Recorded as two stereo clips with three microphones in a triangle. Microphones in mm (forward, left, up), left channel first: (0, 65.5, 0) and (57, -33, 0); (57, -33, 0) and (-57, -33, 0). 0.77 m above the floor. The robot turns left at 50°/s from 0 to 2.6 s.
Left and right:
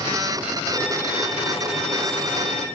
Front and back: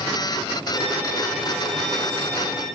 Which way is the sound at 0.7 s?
160° right.